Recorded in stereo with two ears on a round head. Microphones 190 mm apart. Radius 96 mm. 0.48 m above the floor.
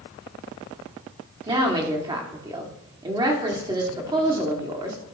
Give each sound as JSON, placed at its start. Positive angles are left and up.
{"t": 1.5, "sound": "a woman speaking", "side_deg": -20, "distance_m": 1.3}